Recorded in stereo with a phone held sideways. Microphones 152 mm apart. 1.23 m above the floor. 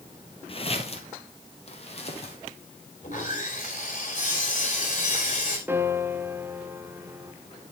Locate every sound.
0.5 s footsteps: 40° left (ahead or behind), 1.5 m
3.0 s sawing: 55° left (ahead or behind), 4 m
5.7 s a piano: 15° right (ahead or behind), 0.9 m